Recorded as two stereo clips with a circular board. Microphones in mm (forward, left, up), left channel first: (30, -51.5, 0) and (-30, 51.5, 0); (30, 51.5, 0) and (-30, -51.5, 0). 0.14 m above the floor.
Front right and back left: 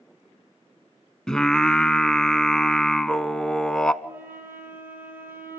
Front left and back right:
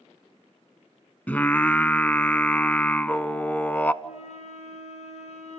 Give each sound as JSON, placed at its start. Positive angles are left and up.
{"t": 1.3, "sound": "singing", "azimuth_deg": 10, "distance_m": 0.5}
{"t": 4.0, "sound": "a flute", "azimuth_deg": 45, "distance_m": 3.0}